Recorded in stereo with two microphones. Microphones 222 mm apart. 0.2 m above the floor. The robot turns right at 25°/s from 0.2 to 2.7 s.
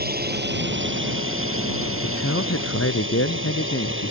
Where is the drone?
135° right; by 4.1 s 70° right.